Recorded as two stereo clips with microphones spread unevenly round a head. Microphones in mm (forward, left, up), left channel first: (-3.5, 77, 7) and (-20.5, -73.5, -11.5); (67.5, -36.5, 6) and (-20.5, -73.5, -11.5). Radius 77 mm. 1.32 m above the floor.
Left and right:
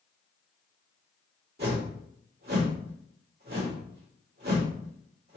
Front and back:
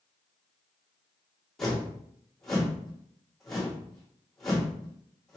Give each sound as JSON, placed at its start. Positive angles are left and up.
{"t": 1.6, "sound": "a whoosh", "azimuth_deg": -60, "distance_m": 2.5}